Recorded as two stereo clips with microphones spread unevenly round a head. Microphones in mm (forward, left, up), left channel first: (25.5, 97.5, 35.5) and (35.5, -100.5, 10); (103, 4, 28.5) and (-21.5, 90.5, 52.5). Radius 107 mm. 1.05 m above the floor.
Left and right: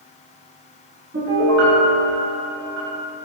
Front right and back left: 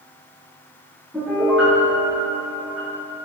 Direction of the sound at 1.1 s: 130° right.